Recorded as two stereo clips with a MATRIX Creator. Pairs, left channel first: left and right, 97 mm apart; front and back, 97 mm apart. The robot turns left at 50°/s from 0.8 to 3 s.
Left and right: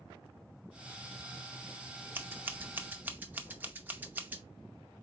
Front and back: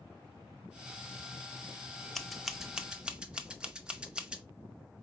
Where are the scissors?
80° right, 0.6 m; by 4.4 s 120° right, 0.6 m.